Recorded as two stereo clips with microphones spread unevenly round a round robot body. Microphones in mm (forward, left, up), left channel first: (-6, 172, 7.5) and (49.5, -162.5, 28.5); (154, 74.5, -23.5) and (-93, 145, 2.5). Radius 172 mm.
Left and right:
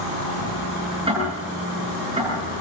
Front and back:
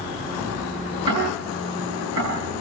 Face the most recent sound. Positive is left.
turn(degrees=-155)